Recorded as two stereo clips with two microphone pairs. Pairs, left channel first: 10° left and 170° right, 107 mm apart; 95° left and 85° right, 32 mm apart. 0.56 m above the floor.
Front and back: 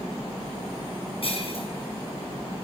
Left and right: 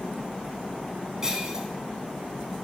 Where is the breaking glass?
20° right, 3.5 m.